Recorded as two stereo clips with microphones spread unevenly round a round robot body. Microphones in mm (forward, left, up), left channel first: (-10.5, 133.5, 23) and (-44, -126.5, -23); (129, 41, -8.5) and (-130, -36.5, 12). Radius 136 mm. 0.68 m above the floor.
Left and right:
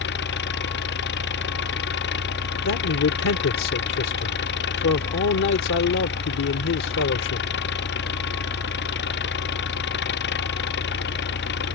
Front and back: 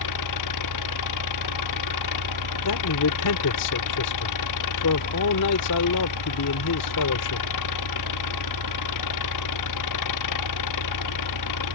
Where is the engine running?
30° left.